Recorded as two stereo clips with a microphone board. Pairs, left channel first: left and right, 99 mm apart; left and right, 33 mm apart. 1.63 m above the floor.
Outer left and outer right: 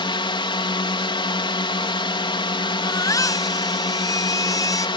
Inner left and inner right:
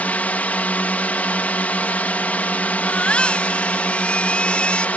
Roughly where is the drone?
Left.